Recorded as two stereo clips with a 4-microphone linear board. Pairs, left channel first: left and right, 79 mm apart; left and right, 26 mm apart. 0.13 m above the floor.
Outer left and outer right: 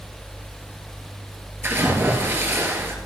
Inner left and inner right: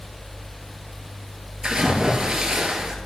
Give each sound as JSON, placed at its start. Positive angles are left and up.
{"t": 1.6, "sound": "a splash", "side_deg": -30, "distance_m": 2.0}